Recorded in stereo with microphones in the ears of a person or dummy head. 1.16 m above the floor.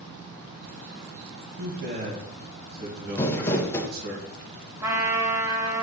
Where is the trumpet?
15° right (ahead or behind), 1.2 m.